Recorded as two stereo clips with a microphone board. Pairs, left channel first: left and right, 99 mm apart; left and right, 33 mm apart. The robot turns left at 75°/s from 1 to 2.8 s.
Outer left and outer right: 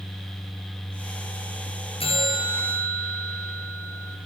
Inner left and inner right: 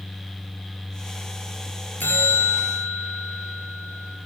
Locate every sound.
2.0 s a bell: 85° left, 4.5 m; by 4.2 s 25° left, 4.5 m